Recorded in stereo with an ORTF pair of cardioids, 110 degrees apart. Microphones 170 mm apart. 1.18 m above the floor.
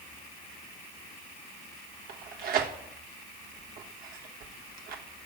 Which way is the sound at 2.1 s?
60° right.